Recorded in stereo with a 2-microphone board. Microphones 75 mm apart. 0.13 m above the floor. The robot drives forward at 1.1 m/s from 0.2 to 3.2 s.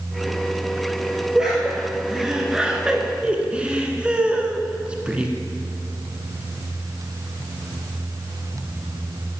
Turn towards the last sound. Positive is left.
turn(degrees=-15)  # may be behind; listen again after turning